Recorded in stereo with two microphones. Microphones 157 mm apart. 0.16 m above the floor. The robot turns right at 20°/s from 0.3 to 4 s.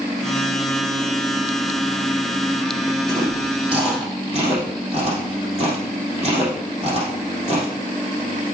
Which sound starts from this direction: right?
Chewing, at 3.1 s.